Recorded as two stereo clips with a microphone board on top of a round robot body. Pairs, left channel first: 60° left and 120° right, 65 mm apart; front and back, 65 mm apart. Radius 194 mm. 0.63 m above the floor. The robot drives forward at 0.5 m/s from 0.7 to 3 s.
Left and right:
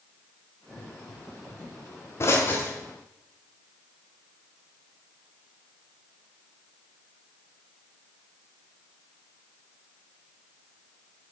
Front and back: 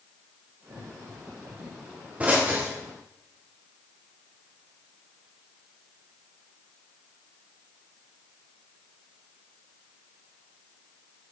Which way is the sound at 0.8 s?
80° left.